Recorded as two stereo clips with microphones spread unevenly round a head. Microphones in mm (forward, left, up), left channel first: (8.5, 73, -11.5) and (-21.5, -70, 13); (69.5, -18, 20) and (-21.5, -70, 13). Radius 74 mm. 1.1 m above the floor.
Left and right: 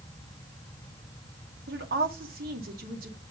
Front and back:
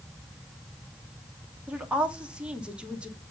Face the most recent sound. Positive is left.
turn(degrees=-70)